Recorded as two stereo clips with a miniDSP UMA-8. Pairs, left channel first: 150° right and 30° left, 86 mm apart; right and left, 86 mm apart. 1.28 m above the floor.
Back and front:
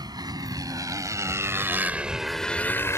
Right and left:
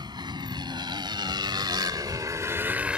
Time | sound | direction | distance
0.0 | a motorcycle | 65° left | ?